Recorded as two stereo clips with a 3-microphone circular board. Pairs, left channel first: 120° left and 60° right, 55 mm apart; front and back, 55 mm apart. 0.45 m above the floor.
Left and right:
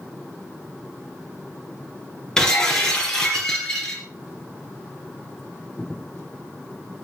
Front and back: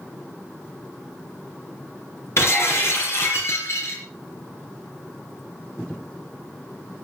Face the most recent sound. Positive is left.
turn(degrees=40)